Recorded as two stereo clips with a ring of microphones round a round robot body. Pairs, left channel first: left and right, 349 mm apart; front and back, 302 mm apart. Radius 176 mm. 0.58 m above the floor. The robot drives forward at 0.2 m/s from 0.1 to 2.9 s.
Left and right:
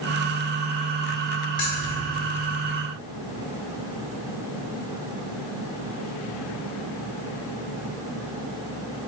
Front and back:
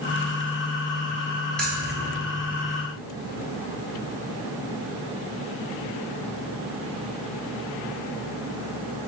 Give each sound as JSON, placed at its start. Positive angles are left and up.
{"t": 1.6, "sound": "keys jangling", "azimuth_deg": 85, "distance_m": 1.9}